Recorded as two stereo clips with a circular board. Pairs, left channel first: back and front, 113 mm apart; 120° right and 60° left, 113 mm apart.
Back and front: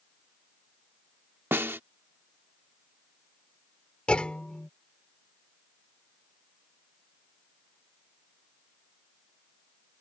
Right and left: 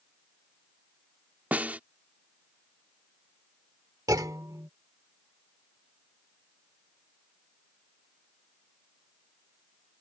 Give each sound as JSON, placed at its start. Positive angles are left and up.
{"t": 1.5, "sound": "a snare drum", "azimuth_deg": 15}
{"t": 4.1, "sound": "a clunk", "azimuth_deg": 105}